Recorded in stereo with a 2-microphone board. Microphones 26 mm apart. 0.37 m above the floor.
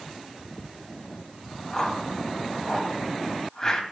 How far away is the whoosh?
About 2.5 m.